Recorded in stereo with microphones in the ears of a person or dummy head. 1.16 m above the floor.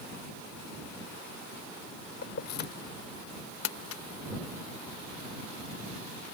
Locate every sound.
2.2 s keys jangling: 60° left (ahead or behind)
3.6 s crumpling: 75° left (ahead or behind)